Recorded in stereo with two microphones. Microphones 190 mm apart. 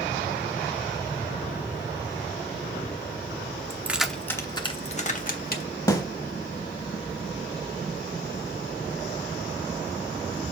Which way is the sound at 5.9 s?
20° left (ahead or behind).